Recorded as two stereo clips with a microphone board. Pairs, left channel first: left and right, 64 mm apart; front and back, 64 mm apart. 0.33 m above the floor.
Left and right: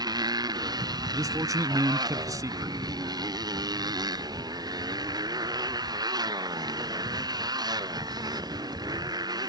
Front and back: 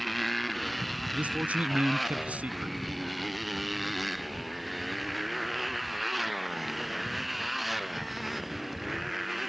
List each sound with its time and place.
0.0 s a motorcycle: 90° right
1.1 s a man speaking: 110° right